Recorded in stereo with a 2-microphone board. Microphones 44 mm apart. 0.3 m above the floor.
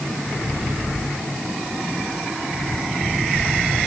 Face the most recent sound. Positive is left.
No sound to turn to.